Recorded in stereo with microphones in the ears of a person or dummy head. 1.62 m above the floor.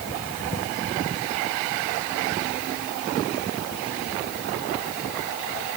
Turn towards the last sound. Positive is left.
No sound to turn to.